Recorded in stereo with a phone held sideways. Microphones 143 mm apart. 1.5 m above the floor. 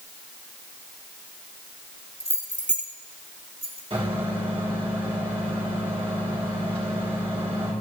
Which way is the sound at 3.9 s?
45° right (ahead or behind).